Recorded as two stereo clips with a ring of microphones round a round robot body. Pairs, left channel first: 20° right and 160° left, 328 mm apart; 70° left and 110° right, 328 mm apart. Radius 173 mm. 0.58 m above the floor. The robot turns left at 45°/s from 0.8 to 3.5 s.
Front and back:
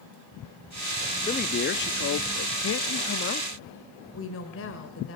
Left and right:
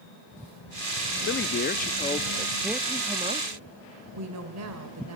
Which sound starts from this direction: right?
A woman speaking, at 4.1 s.